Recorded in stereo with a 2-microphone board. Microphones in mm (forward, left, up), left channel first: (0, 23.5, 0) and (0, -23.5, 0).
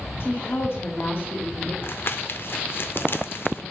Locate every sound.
0.2 s a woman speaking: 60° left (ahead or behind), 1.8 m; by 1.7 s 50° left (ahead or behind), 1.6 m
1.8 s crumpling: 55° left (ahead or behind), 0.6 m